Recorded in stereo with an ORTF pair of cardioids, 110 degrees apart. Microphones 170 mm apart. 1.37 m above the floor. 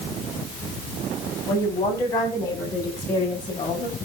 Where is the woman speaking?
15° left, 9 m; by 4.0 s 30° left, 10.5 m.